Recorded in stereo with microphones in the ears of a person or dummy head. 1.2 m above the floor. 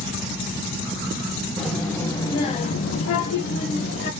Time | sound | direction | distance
1.6 | a child speaking | 5° left (ahead or behind) | 1.3 m